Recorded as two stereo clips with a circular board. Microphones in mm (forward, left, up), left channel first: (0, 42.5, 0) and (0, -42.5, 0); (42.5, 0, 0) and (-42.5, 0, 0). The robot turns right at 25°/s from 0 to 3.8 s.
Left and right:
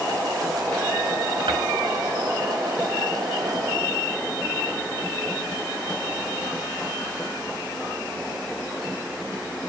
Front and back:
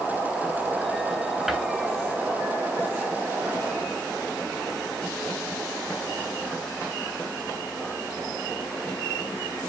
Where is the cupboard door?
95° right, 7.5 m; by 1.6 s 90° right, 7.5 m.